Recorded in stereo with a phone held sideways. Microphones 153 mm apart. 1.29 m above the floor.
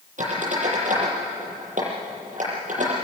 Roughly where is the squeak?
Right.